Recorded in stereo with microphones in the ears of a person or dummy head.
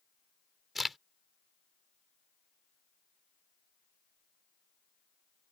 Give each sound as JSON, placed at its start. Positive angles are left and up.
{"t": 0.8, "sound": "a crack", "side_deg": 0}